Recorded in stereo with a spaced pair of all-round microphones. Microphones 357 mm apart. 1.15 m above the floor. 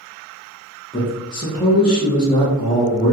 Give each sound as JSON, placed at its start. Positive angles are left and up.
{"t": 0.9, "sound": "a man speaking", "side_deg": 15, "distance_m": 1.2}